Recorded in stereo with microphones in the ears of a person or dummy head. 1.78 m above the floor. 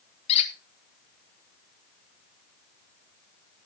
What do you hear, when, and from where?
0.3 s a squeak: 30° left (ahead or behind), 1.7 m